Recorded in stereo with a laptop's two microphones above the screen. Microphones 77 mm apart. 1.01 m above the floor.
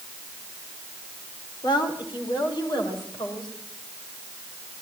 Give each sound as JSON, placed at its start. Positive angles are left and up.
{"t": 1.6, "sound": "a woman speaking", "side_deg": 80, "distance_m": 4.0}